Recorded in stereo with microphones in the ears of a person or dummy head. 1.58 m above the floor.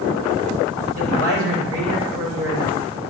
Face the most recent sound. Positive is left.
turn(degrees=-75)  # may be behind; listen again after turning